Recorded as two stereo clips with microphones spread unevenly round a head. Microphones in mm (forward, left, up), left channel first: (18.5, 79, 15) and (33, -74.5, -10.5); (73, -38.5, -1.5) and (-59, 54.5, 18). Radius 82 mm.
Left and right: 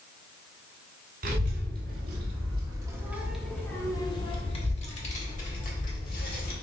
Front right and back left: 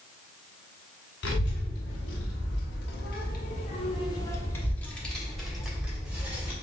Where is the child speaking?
55° right, 1.8 m; by 6.5 s 65° left, 2.5 m.